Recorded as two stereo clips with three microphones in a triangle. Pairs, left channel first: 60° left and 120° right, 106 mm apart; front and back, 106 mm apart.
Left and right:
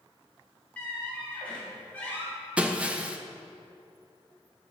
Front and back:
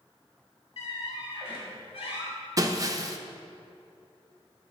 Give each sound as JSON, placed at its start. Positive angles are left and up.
{"t": 0.8, "sound": "a squeak", "azimuth_deg": -15, "distance_m": 2.5}
{"t": 2.6, "sound": "breaking glass", "azimuth_deg": 175, "distance_m": 0.6}